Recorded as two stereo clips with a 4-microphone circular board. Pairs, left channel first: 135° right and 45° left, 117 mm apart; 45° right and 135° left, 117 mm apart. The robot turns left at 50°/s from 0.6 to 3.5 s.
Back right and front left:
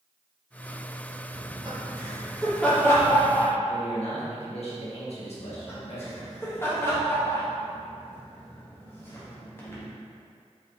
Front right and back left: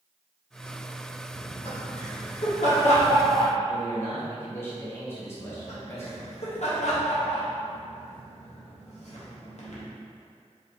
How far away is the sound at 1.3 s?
About 1.7 m.